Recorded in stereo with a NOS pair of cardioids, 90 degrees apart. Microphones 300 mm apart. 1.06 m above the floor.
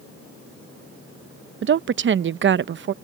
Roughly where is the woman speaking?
Ahead right.